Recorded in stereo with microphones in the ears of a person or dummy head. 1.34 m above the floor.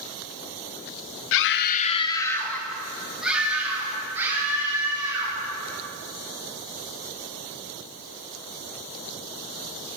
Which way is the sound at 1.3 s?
75° left (ahead or behind).